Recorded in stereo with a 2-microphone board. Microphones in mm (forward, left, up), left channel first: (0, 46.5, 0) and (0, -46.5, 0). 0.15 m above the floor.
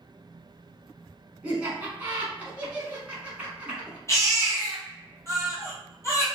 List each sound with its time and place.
1.4 s laughter: 15° right (ahead or behind), 1.2 m
4.1 s a baby crying: 30° left (ahead or behind), 1.3 m